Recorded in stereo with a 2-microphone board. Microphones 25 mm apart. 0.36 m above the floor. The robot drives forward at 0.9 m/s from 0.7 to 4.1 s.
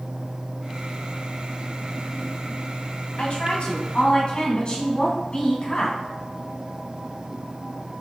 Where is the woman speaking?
50° left (ahead or behind), 2 m; by 6.0 s 40° left (ahead or behind), 2.5 m.